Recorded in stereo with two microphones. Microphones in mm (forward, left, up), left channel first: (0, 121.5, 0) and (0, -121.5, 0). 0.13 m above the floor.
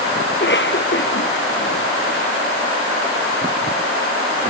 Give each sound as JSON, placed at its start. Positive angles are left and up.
{"t": 0.3, "sound": "a cough", "side_deg": 50}